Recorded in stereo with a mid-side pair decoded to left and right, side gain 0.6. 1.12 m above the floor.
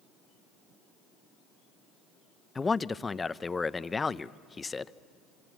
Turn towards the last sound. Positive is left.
turn(degrees=20)